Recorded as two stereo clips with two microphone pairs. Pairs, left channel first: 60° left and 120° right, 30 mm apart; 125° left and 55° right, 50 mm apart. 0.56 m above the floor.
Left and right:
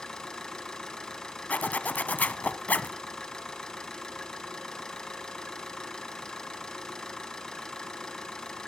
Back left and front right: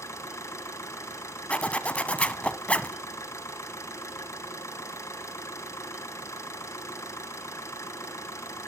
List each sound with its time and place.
0.0 s an engine running: 125° left, 2.5 m
1.5 s a zipper: 70° left, 0.8 m